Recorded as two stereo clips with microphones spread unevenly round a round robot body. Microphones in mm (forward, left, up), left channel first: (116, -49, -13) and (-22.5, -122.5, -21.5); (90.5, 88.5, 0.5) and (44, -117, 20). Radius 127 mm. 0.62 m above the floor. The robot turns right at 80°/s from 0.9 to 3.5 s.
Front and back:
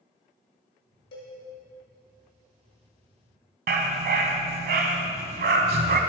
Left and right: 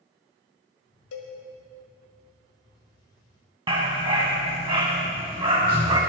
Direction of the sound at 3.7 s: 170° right.